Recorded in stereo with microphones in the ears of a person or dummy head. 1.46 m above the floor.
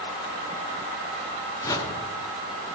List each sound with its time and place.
1.6 s a whoosh: 20° left (ahead or behind), 0.9 m